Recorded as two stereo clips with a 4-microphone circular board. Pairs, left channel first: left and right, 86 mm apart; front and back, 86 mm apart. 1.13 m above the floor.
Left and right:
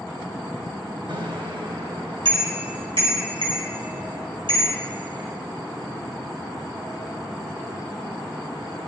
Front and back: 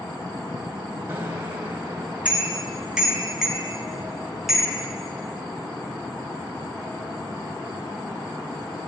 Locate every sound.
1.1 s a bicycle bell: 115° right, 5 m; by 4.8 s 95° right, 9 m